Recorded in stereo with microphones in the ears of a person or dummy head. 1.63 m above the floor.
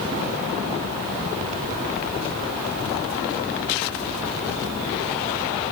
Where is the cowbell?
No cowbell in this recording.